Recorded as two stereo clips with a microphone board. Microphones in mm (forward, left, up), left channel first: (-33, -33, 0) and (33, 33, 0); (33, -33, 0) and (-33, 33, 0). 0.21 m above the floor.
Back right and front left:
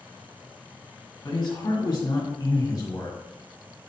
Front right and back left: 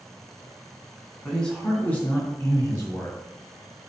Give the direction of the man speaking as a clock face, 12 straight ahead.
4 o'clock.